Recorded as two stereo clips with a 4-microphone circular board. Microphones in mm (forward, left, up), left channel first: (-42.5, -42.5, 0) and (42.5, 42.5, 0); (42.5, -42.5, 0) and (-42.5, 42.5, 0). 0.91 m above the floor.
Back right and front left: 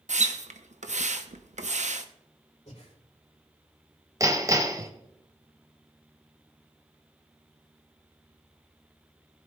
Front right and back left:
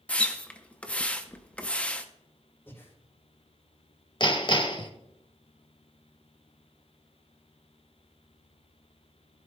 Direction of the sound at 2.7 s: 115° right.